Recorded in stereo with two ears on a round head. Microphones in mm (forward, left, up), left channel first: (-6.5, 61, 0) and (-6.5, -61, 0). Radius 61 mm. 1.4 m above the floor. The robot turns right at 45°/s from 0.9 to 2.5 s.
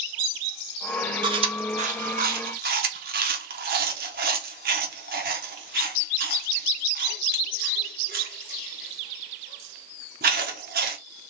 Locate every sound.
1.2 s chewing: 35° right (ahead or behind), 1.1 m; by 11.0 s 75° right (ahead or behind), 1.1 m